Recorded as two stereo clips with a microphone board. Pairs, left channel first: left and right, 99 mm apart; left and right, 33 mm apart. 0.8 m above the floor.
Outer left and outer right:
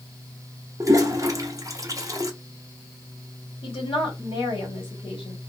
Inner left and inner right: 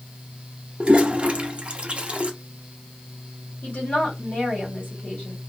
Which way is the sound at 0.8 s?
35° right (ahead or behind).